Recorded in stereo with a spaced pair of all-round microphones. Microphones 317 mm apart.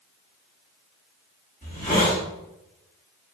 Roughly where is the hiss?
Left.